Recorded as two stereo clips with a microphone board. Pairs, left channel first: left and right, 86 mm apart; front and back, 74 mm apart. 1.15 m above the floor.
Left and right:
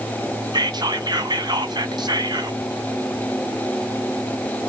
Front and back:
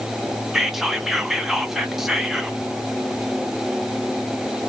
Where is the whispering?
95° right, 0.8 m.